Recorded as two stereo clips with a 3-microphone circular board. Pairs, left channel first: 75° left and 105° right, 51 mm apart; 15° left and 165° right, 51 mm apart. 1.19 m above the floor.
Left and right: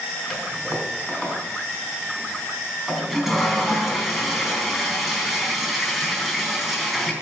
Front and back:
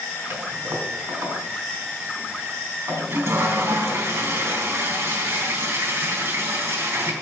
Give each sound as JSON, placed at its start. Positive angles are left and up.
{"t": 0.3, "sound": "a toilet flushing", "azimuth_deg": 170, "distance_m": 3.5}